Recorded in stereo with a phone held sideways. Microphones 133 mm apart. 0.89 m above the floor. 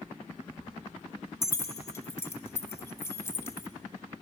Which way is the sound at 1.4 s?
20° left (ahead or behind).